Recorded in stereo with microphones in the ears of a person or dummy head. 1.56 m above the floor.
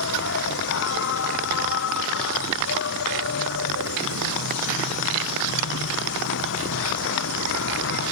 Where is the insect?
65° left (ahead or behind).